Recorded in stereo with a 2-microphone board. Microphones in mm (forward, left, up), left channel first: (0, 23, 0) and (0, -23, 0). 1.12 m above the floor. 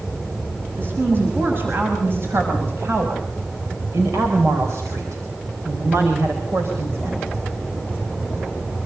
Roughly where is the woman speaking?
Right.